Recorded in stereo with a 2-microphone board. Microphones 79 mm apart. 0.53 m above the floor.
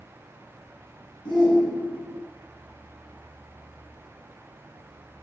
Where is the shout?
75° left (ahead or behind), 6.5 m.